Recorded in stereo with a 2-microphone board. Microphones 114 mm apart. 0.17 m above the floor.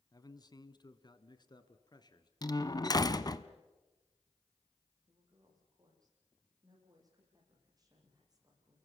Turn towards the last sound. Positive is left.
turn(degrees=-35)  # may be behind; listen again after turning